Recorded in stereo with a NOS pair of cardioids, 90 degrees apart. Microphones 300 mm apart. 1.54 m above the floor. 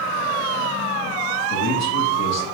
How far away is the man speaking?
About 1.9 m.